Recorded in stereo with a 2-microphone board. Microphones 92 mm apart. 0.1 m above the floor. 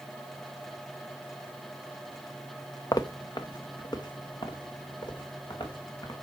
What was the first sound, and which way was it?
Footsteps, 40° left (ahead or behind).